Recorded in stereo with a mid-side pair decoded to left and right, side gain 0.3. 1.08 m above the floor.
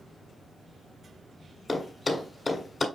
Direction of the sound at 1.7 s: 40° left.